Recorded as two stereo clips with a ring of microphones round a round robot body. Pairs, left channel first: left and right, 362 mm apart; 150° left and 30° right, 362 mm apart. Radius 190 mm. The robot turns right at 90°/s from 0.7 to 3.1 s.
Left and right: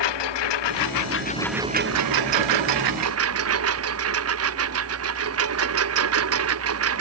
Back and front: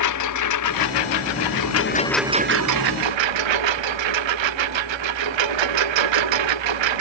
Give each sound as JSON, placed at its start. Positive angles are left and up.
{"t": 0.0, "sound": "a lawn mower", "azimuth_deg": 105}